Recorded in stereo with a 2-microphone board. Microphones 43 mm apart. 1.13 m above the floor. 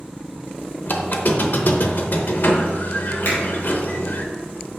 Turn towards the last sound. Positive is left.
turn(degrees=85)